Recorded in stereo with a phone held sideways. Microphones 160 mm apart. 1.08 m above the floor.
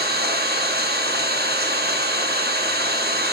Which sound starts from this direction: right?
An engine running, at 0.0 s.